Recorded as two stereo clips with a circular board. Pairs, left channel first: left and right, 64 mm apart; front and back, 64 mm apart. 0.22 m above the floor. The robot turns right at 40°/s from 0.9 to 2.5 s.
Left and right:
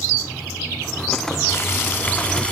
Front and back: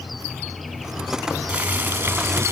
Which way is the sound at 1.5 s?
120° left.